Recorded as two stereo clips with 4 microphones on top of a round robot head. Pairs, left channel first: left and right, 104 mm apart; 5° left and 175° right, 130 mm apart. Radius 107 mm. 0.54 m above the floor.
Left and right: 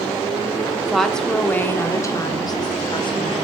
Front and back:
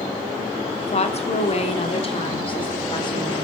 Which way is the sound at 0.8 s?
5° right.